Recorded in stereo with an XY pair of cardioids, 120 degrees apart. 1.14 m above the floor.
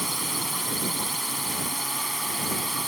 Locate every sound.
0.0 s a drone: 5° right